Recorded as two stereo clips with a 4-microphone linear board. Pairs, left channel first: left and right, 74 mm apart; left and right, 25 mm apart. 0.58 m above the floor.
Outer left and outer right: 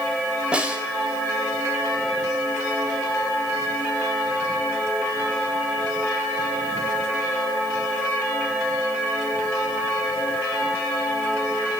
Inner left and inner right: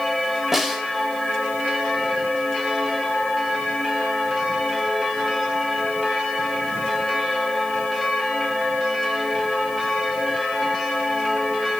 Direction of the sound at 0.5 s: 15° right (ahead or behind).